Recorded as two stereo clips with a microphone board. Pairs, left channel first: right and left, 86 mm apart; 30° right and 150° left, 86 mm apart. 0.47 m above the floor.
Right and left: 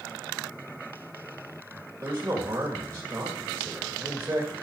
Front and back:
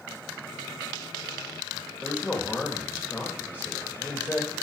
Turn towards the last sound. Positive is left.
turn(degrees=40)